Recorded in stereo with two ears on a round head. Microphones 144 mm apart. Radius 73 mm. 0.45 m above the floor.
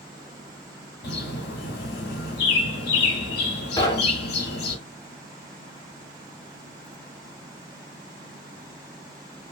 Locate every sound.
1.0 s a bird: 70° left (ahead or behind), 0.9 m
3.8 s knocking: 25° left (ahead or behind), 0.6 m